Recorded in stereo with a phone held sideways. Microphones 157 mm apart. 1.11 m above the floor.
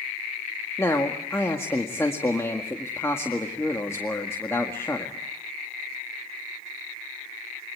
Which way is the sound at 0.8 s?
15° left (ahead or behind).